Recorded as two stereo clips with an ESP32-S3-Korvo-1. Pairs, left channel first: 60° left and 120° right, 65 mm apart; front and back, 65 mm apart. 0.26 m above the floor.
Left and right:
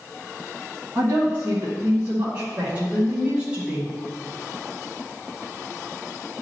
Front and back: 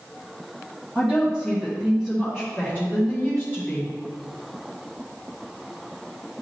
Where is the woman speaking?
100° right, 2.5 m; by 3.9 s 50° right, 2.5 m.